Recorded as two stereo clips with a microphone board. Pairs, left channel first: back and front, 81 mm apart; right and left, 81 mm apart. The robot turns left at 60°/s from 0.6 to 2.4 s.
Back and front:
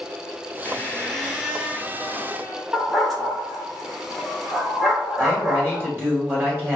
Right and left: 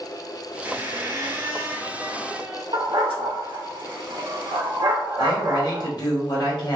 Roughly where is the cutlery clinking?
No cutlery clinking in this recording.